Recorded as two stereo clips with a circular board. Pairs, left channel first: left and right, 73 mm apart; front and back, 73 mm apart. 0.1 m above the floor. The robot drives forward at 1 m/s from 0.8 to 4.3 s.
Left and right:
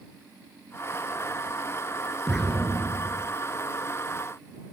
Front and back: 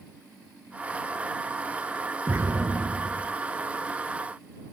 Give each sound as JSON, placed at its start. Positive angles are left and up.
{"t": 2.3, "sound": "an explosion", "azimuth_deg": 170, "distance_m": 1.9}